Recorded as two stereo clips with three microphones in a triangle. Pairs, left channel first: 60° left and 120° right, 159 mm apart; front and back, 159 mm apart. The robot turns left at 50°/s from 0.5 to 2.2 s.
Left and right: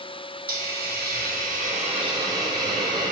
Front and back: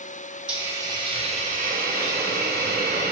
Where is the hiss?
95° right, 0.8 m; by 3.1 s straight behind, 0.8 m.